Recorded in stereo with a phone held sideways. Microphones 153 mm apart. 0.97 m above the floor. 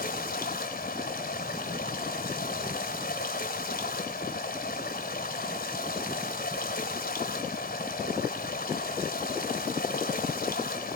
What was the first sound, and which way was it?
Running water, 80° left.